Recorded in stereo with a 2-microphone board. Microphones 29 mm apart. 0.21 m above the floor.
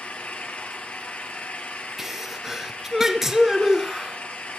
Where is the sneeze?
10° right (ahead or behind), 2.5 m.